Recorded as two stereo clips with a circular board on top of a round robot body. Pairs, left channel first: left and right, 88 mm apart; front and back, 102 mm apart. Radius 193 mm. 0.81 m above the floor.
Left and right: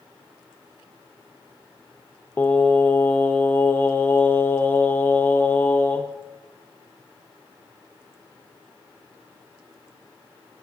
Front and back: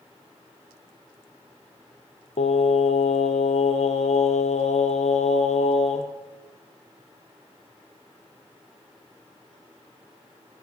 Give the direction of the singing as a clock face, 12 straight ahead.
11 o'clock.